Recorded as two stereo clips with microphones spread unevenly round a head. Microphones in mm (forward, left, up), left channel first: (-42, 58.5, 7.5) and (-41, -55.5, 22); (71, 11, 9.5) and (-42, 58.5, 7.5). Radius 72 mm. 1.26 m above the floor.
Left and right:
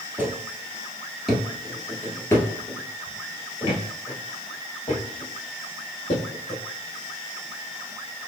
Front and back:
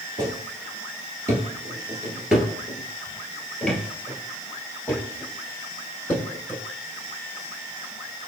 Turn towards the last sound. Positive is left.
turn(degrees=50)